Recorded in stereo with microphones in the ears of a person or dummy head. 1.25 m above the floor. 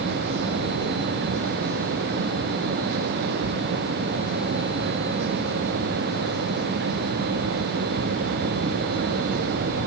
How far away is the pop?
I don't hear a pop.